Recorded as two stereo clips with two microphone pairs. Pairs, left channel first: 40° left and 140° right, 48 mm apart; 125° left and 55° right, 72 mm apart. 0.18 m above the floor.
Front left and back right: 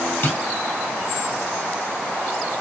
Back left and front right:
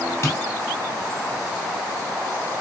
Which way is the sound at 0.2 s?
75° left.